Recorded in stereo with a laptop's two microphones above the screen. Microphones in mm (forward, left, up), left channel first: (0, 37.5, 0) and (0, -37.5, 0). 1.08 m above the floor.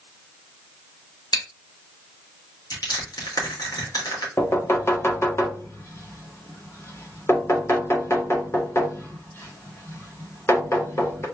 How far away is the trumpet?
No trumpet in this recording.